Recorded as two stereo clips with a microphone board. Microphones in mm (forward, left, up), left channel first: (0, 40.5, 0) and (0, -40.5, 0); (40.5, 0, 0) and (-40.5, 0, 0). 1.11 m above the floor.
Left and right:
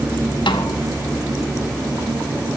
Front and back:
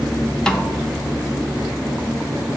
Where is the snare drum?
80° left, 0.6 m.